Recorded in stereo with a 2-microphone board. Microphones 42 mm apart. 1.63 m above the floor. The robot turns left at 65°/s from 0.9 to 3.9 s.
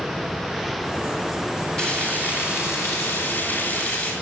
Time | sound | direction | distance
1.8 | frying | 165° left | 8.5 m